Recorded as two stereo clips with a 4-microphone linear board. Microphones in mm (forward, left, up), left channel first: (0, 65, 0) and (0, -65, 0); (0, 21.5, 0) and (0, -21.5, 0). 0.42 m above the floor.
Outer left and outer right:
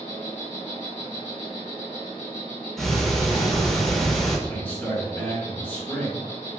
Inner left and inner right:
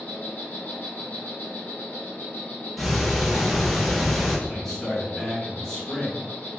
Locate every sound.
0.0 s an insect: 60° left (ahead or behind), 1.4 m
2.8 s ticking: 5° left (ahead or behind), 0.7 m
4.5 s a man speaking: 15° left (ahead or behind), 0.8 m